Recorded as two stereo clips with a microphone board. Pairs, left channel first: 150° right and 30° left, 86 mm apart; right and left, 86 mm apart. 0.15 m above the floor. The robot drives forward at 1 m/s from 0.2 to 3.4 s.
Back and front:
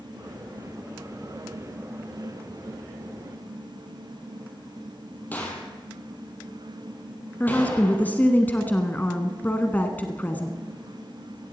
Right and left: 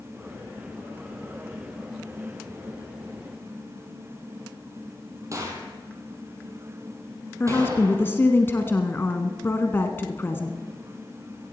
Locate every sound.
5.3 s a gunshot: 140° left, 3 m
7.4 s a woman speaking: 110° right, 1.1 m